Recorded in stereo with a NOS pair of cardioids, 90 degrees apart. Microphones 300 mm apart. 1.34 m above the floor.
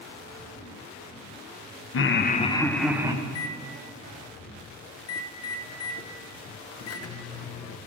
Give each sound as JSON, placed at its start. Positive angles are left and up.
{"t": 1.9, "sound": "laughter", "azimuth_deg": 45, "distance_m": 0.9}
{"t": 3.2, "sound": "a microwave", "azimuth_deg": 55, "distance_m": 0.8}